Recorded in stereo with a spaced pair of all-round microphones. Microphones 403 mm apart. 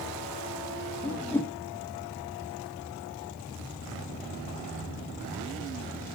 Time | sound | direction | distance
1.0 | a whoosh | 5° left (ahead or behind) | 0.7 m